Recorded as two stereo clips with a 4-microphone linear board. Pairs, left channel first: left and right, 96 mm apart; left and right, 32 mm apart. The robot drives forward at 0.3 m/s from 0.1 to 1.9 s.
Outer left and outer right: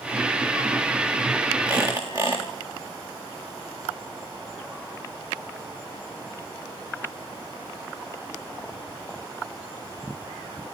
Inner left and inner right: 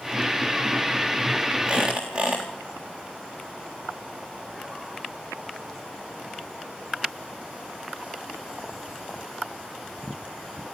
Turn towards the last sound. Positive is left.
turn(degrees=-35)  # may be behind; listen again after turning